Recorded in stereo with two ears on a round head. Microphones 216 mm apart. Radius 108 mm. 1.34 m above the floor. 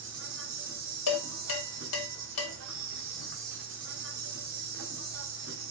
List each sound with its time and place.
0.0 s an insect: 55° right (ahead or behind), 0.9 m
1.1 s dishes clattering: 75° left (ahead or behind), 1.4 m